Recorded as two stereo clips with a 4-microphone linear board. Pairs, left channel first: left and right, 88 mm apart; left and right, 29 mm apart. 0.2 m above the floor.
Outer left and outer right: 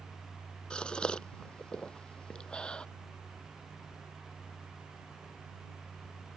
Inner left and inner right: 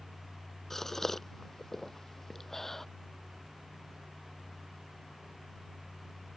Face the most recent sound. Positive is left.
turn(degrees=10)  # may be behind; listen again after turning